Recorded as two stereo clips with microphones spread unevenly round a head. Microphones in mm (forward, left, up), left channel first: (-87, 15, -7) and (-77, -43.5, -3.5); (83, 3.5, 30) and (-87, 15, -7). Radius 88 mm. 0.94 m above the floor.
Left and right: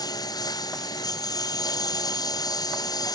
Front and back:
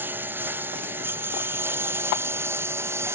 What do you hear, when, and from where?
0.0 s a lawn mower: 95° left; by 3.1 s 100° left